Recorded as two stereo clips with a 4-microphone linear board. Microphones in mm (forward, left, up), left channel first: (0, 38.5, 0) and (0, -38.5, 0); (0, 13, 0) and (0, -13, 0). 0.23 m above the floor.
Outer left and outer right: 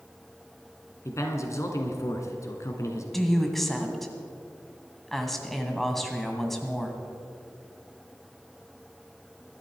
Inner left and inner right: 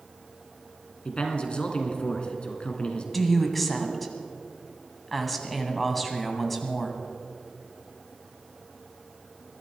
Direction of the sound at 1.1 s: 40° left (ahead or behind).